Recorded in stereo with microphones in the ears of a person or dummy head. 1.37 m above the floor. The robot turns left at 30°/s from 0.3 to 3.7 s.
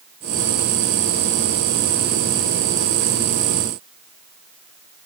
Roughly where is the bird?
I don't hear a bird.